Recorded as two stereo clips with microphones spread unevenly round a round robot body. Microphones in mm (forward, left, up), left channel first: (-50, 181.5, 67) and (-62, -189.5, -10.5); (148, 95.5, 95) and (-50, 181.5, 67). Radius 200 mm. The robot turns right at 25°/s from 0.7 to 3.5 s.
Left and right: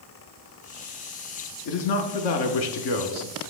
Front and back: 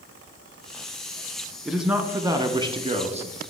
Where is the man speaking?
75° left, 1.0 m; by 3.4 s 115° left, 1.0 m.